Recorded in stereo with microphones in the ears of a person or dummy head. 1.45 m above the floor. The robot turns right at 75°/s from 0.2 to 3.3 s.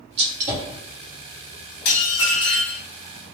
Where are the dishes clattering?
80° left, 1.7 m; by 2.8 s 155° left, 1.7 m.